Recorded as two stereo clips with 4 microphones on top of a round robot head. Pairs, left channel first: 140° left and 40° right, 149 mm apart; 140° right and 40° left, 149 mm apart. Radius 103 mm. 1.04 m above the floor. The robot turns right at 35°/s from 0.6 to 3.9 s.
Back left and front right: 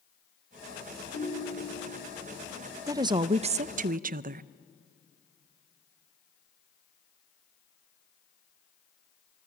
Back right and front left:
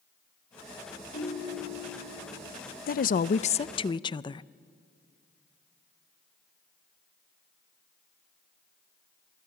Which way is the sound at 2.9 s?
115° right.